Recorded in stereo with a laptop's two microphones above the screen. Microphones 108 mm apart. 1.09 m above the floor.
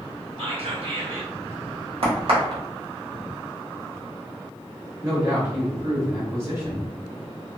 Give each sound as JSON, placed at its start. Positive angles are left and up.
{"t": 0.4, "sound": "whispering", "side_deg": -65, "distance_m": 1.7}
{"t": 2.0, "sound": "a crack", "side_deg": -60, "distance_m": 1.3}
{"t": 5.0, "sound": "a man speaking", "side_deg": -25, "distance_m": 1.0}